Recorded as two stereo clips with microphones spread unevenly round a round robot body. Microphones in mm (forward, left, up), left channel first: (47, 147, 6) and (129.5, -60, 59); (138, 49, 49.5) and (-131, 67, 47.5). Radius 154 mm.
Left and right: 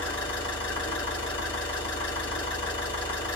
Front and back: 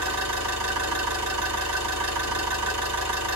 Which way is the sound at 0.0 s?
Straight behind.